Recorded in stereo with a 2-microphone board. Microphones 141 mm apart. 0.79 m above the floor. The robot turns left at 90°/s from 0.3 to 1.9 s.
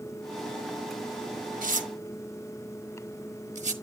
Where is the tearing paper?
75° right (ahead or behind), 1.2 m; by 3.7 s 55° right (ahead or behind), 1.2 m.